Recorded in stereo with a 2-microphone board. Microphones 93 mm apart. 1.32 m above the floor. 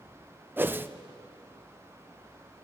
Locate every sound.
0.6 s a whoosh: 20° right (ahead or behind), 0.6 m